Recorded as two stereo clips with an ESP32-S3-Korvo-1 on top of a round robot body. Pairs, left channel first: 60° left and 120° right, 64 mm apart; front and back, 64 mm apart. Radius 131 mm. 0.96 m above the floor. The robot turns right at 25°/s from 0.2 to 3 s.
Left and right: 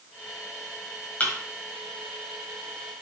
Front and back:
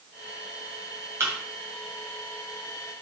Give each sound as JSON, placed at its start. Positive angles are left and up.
{"t": 1.2, "sound": "a thud", "azimuth_deg": 130, "distance_m": 1.7}